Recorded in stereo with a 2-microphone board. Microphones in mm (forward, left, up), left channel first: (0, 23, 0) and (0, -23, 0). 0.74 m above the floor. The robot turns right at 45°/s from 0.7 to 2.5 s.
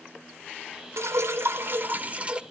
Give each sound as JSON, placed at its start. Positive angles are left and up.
{"t": 1.0, "sound": "dripping", "azimuth_deg": -90, "distance_m": 0.8}